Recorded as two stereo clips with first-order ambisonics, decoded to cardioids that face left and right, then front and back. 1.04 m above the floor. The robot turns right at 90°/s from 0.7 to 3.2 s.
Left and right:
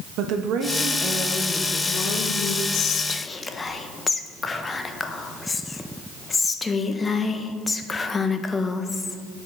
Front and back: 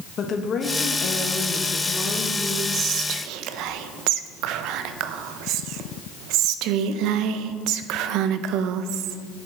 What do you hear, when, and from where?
0.2 s a woman speaking: 60° right, 1.2 m; by 2.6 s 115° left, 1.2 m
2.7 s whispering: 120° left, 0.6 m; by 9.2 s 165° left, 0.6 m